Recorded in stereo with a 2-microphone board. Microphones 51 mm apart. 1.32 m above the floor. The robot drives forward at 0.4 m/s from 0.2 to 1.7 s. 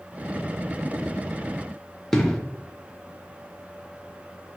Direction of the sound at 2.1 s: 10° left (ahead or behind).